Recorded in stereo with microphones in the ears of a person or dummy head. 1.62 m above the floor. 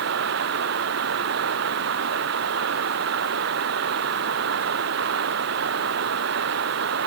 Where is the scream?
No scream in this recording.